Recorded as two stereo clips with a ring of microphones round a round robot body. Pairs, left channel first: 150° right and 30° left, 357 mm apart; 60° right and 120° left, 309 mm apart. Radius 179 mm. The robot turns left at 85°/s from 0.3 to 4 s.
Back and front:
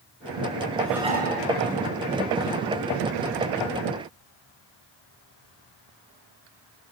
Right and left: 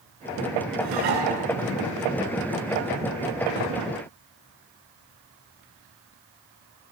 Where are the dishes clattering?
125° left, 7 m; by 1.3 s 85° left, 7 m.